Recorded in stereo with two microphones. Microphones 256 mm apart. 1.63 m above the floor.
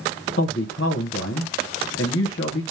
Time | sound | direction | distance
0.4 | a man speaking | 55° left (ahead or behind) | 0.9 m